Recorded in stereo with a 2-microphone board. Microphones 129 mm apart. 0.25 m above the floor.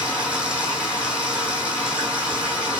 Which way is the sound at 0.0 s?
10° right (ahead or behind).